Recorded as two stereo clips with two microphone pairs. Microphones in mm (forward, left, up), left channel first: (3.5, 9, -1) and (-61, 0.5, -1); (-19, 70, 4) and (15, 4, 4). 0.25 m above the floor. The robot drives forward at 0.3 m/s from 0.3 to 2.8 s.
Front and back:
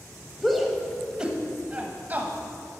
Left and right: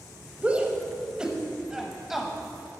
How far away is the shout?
About 1.0 m.